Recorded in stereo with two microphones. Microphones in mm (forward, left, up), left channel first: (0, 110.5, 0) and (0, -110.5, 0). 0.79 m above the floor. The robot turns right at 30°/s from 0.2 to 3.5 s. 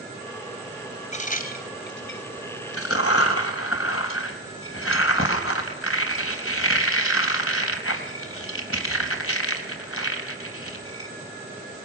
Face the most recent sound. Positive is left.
turn(degrees=75)  # may be behind; listen again after turning